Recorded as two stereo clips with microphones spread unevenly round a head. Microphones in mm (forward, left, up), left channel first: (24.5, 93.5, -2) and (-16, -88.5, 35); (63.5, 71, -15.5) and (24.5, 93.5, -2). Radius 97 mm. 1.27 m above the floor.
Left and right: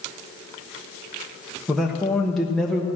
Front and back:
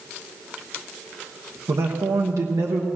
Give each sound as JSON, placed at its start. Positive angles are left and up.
{"t": 1.7, "sound": "a man speaking", "azimuth_deg": 160, "distance_m": 1.1}